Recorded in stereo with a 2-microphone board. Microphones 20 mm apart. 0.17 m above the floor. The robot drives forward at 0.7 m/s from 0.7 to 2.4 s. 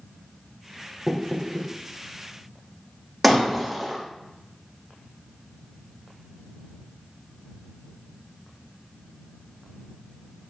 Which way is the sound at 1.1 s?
5° left (ahead or behind).